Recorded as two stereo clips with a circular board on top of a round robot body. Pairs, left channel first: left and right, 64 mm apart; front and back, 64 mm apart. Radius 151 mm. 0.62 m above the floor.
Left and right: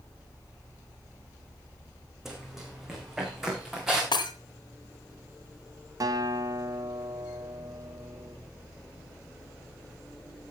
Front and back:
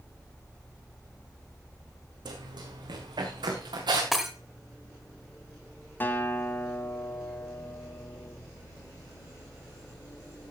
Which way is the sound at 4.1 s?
90° left.